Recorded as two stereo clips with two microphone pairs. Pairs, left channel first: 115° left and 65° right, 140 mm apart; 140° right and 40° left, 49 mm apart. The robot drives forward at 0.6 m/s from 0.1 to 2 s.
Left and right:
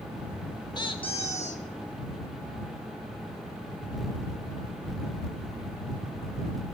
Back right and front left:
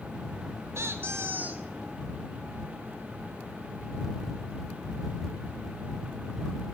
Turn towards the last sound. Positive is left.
turn(degrees=110)